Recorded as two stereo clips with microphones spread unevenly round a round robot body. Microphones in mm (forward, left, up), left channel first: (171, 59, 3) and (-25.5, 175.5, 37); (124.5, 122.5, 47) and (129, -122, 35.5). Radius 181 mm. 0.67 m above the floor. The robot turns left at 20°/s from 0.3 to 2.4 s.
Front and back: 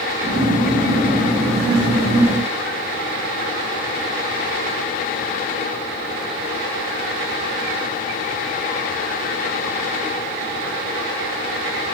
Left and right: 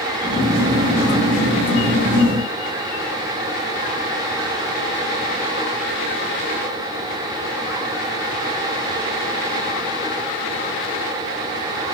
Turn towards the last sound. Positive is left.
No sound to turn to.